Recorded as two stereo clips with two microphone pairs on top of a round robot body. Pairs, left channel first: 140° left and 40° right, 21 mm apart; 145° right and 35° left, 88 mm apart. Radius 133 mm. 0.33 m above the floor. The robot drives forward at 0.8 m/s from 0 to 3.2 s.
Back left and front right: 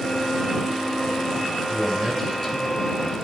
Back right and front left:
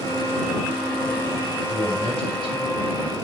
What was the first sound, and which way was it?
A man speaking, 140° right.